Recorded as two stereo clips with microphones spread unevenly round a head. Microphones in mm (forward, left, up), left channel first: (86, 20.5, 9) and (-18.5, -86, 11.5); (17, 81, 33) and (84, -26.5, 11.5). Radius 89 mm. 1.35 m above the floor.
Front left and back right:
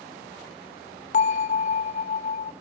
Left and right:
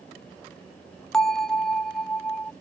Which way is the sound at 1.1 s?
50° left.